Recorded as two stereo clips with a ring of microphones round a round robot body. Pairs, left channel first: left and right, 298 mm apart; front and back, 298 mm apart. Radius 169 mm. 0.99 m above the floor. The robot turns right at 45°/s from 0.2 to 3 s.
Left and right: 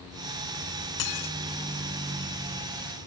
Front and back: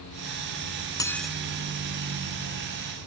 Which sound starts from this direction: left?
Dishes clattering, at 1.0 s.